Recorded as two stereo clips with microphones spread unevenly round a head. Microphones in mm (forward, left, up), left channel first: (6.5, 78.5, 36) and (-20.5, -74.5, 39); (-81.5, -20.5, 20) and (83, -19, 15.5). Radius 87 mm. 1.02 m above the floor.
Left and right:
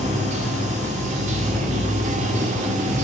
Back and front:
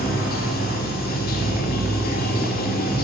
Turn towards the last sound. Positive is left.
turn(degrees=-145)